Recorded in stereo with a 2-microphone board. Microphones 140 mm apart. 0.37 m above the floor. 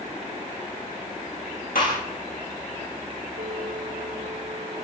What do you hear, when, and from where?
1.8 s a gunshot: 90° left, 7.5 m
3.4 s a bell: 65° right (ahead or behind), 4 m